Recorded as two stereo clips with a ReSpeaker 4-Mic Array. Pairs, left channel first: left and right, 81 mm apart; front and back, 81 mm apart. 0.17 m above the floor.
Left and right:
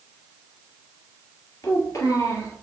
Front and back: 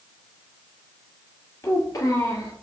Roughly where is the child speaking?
Ahead left.